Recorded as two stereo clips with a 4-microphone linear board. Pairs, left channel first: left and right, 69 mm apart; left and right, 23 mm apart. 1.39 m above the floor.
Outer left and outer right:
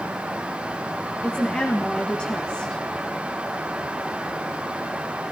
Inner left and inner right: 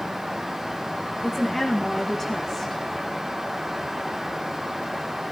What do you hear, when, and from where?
1.2 s a woman speaking: 15° left (ahead or behind), 1.9 m